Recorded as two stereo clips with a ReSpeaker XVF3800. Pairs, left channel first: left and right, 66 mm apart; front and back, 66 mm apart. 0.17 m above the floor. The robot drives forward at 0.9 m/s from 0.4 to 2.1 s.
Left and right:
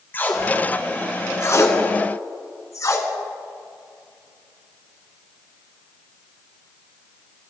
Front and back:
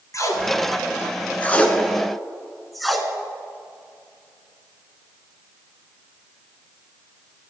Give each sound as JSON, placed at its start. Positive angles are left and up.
{"t": 0.1, "sound": "tape being pulled", "azimuth_deg": 35, "distance_m": 2.0}